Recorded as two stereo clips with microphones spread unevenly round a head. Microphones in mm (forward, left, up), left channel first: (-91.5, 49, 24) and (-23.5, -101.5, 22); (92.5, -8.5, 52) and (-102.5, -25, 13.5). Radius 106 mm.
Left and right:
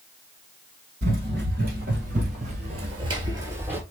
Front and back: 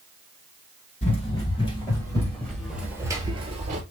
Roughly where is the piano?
No piano in this recording.